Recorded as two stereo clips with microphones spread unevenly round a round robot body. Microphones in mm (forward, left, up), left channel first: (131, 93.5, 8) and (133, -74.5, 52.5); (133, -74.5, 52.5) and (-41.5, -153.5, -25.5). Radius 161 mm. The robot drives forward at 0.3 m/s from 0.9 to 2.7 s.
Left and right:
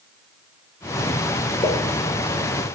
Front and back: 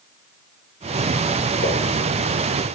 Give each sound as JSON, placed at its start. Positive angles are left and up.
{"t": 1.6, "sound": "a pop", "azimuth_deg": 25, "distance_m": 2.0}